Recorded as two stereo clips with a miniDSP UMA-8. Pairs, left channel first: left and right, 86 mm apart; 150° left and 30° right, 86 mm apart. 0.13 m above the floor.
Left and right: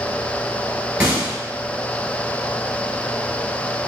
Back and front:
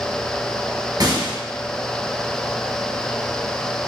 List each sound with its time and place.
1.0 s a gunshot: 10° right, 2.5 m